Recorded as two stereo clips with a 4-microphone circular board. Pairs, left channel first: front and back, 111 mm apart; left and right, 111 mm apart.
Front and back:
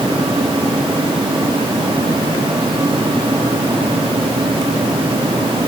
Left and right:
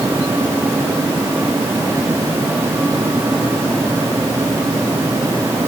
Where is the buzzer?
I don't hear a buzzer.